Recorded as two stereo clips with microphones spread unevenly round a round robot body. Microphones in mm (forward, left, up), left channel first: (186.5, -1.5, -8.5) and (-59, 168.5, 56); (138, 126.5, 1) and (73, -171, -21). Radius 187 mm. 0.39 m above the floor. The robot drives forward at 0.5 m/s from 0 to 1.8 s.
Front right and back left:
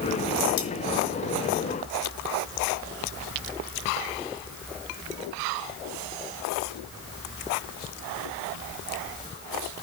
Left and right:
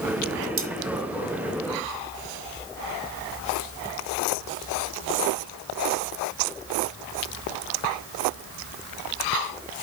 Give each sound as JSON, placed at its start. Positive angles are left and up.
{"t": 0.6, "sound": "cutlery clinking", "azimuth_deg": -60, "distance_m": 1.7}